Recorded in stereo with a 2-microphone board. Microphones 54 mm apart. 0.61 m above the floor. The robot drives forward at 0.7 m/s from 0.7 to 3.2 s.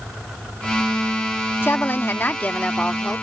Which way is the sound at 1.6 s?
40° left (ahead or behind).